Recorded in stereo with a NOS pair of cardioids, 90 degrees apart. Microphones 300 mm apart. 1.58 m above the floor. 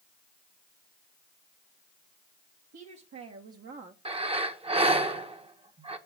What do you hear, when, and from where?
2.7 s a woman speaking: 65° right, 2.5 m; by 4.0 s 20° right, 1.2 m
4.0 s breathing: 20° right, 1.4 m